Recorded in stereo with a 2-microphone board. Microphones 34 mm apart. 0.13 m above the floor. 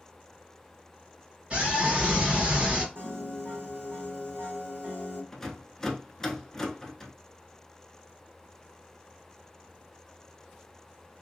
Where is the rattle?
15° left (ahead or behind), 0.6 m.